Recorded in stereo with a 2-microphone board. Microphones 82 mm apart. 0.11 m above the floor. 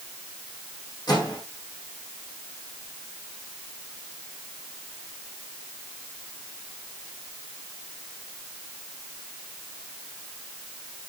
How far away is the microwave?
About 4.5 m.